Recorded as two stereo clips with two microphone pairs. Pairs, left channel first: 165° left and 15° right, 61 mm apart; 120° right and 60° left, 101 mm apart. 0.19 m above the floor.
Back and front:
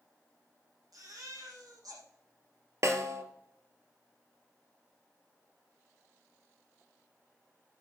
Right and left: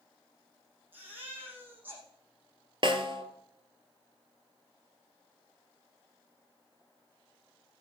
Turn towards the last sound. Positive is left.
turn(degrees=25)